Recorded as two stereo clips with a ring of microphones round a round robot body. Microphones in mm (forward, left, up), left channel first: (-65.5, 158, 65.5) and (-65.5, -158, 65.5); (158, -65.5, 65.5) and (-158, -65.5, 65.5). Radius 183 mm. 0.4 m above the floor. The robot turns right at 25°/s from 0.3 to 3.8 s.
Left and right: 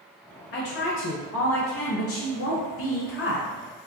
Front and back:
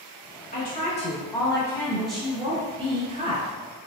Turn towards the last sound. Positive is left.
turn(degrees=130)